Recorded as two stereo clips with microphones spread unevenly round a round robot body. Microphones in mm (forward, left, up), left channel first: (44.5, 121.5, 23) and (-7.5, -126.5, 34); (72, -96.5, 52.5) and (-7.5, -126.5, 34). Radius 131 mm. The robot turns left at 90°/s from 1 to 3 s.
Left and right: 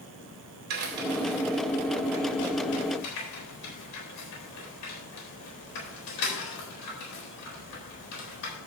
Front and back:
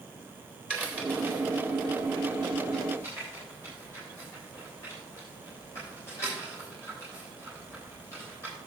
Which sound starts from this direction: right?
A crack, at 0.7 s.